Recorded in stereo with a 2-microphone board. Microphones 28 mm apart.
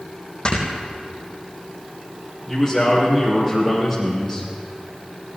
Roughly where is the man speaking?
Centre.